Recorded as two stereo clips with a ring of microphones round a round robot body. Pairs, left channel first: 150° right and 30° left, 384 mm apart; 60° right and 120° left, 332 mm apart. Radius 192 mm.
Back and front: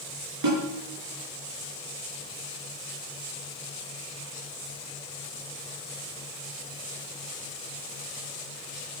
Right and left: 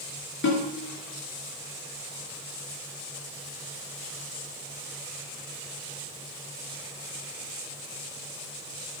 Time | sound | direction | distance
0.4 | a snare drum | 5° right | 5 m